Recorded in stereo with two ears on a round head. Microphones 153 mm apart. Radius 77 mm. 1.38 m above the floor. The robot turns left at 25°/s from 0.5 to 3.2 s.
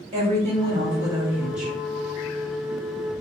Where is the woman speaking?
145° right, 2 m; by 1.8 s straight behind, 2 m.